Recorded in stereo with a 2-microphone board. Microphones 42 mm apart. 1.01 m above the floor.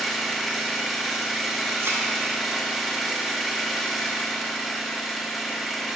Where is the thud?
80° right, 1.4 m.